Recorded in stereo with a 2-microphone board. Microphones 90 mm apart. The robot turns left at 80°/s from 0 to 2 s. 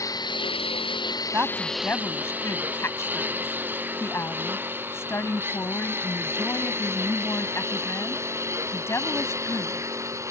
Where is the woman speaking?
155° right; by 9.9 s 150° left.